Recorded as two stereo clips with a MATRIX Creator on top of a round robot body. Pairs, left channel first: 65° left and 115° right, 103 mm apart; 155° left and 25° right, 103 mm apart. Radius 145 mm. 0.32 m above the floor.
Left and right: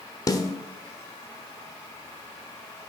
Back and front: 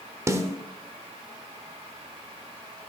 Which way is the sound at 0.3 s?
25° left.